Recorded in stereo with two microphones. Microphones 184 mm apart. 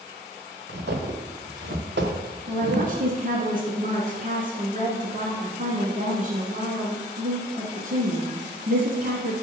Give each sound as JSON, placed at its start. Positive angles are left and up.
{"t": 0.7, "sound": "footsteps", "side_deg": -65, "distance_m": 2.5}
{"t": 2.5, "sound": "a woman speaking", "side_deg": -50, "distance_m": 1.8}